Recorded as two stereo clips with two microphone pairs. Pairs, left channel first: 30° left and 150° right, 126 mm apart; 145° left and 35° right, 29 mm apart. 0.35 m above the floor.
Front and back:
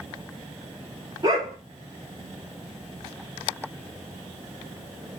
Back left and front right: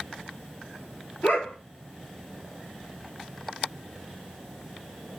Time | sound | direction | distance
1.2 | a dog barking | 150° left | 2.5 m